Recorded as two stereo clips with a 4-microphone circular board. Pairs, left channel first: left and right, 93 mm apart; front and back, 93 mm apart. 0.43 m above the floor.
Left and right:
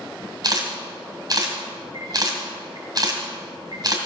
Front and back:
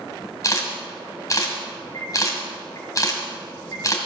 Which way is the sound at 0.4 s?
50° right.